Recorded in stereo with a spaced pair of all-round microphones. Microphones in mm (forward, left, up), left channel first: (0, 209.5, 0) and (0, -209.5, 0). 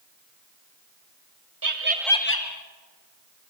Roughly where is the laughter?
Right.